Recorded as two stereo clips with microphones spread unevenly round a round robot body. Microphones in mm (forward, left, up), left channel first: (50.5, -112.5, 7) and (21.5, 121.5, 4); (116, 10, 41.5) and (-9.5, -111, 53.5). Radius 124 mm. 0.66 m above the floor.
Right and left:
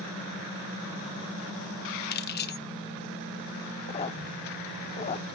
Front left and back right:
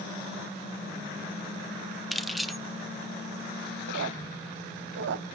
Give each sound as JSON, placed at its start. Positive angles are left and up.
{"t": 2.1, "sound": "keys jangling", "azimuth_deg": -45, "distance_m": 0.8}
{"t": 3.9, "sound": "a squeak", "azimuth_deg": -150, "distance_m": 0.6}